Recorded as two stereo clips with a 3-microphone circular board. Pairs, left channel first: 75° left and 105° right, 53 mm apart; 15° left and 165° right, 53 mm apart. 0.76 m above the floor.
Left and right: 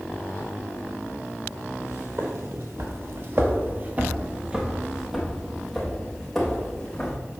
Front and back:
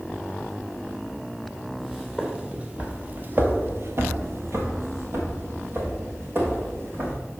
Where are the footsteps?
80° right, 1.6 m; by 7.2 s 155° left, 3 m.